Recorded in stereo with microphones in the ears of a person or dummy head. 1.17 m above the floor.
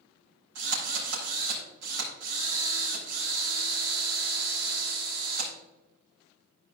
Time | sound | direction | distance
0.6 | a drill | 70° right (ahead or behind) | 4.5 m